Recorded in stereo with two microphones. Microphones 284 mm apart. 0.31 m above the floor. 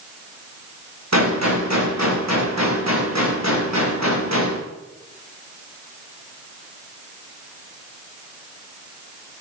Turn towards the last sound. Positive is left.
turn(degrees=-70)  # may be behind; listen again after turning